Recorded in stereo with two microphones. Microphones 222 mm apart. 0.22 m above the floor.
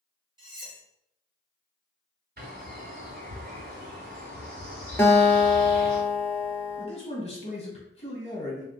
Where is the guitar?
10° left (ahead or behind), 0.6 m.